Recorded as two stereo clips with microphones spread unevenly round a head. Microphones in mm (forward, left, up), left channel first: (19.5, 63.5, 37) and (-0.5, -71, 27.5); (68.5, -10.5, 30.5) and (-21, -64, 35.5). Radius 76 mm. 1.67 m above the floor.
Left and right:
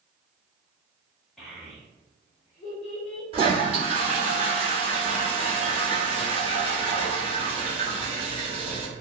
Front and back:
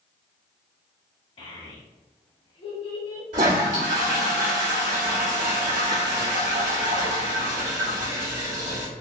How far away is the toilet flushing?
About 1.2 m.